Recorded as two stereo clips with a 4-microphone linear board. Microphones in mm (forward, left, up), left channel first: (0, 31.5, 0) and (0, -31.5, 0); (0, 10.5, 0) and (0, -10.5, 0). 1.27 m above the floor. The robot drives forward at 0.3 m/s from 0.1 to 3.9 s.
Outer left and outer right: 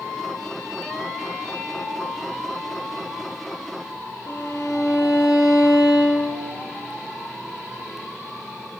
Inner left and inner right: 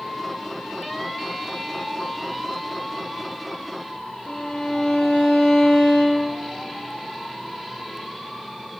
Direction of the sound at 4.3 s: 55° left (ahead or behind).